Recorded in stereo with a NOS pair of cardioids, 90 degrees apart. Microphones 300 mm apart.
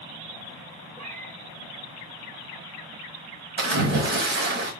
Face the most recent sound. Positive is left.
turn(degrees=-40)